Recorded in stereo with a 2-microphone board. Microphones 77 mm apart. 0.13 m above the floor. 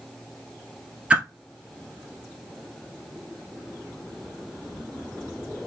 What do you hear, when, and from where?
1.1 s a whoosh: 15° right (ahead or behind), 1.2 m